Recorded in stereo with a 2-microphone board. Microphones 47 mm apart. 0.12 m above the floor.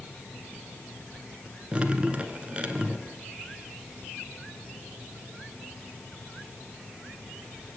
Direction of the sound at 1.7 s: 25° right (ahead or behind).